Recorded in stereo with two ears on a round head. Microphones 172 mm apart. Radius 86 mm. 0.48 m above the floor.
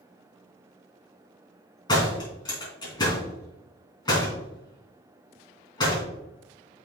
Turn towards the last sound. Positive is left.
turn(degrees=20)  # may be behind; listen again after turning